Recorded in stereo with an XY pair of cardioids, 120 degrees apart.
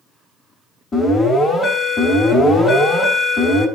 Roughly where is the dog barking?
I don't hear a dog barking.